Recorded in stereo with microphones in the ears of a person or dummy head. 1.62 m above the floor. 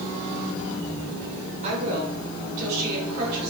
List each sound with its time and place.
1.6 s a woman speaking: 40° right (ahead or behind), 6.5 m; by 3.5 s 60° right (ahead or behind), 7.5 m